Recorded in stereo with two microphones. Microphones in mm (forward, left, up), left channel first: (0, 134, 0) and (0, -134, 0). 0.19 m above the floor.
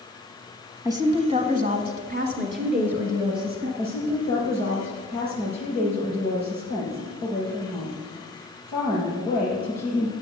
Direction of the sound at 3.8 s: 35° right (ahead or behind).